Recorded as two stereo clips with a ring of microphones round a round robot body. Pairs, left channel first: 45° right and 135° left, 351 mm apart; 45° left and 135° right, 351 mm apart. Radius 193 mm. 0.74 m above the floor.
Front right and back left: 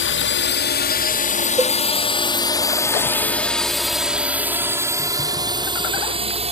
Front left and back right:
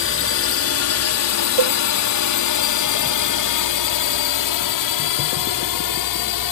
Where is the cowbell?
145° right.